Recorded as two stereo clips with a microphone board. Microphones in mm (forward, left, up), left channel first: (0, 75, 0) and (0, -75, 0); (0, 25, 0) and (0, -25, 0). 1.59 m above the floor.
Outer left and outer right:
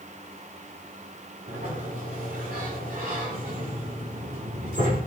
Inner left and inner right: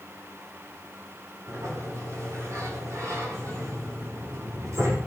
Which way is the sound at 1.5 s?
75° right (ahead or behind).